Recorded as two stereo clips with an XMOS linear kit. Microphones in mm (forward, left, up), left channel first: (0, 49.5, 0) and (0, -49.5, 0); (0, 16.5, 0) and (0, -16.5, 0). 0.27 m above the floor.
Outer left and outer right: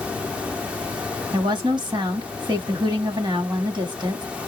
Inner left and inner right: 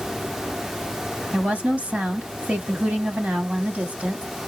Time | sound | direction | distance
1.3 | a woman speaking | 50° right (ahead or behind) | 1.5 m